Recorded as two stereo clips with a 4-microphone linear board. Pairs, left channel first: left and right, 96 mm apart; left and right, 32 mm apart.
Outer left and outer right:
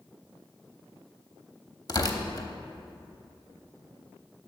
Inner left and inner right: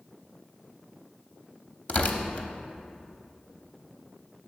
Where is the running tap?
I don't hear a running tap.